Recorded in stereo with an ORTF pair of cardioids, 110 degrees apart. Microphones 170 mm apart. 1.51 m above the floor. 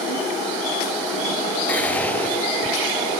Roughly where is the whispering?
Ahead.